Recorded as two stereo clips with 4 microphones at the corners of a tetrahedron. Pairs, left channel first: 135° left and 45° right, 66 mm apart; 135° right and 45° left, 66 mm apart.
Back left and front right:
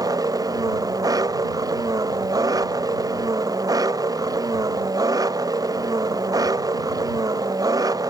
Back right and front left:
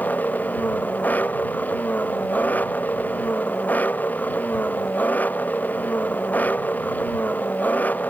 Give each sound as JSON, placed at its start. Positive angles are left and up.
{"t": 0.0, "sound": "an engine running", "azimuth_deg": -70}